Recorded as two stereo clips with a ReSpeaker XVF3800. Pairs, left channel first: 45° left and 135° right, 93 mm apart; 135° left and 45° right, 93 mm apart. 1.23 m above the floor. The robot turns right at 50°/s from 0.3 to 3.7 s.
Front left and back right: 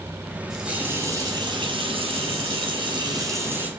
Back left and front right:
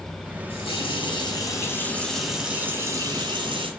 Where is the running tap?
140° left, 5 m; by 3.7 s 60° right, 5 m.